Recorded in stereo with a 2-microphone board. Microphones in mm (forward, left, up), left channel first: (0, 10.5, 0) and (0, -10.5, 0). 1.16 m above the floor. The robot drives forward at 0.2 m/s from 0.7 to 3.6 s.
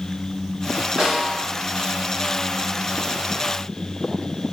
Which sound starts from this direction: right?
A snare drum, at 1.0 s.